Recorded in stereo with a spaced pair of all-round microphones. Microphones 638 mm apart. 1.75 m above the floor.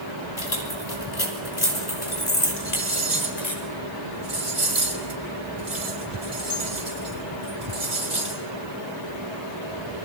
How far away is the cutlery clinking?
About 4.5 m.